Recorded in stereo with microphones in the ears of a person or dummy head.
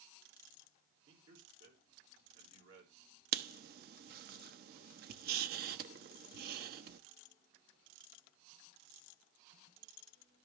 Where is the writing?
60° right (ahead or behind), 1.0 m.